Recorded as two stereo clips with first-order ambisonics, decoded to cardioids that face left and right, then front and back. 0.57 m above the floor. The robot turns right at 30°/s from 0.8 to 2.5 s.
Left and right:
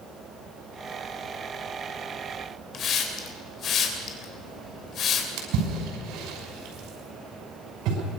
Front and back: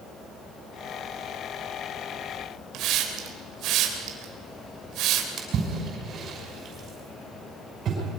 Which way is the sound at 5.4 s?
120° right.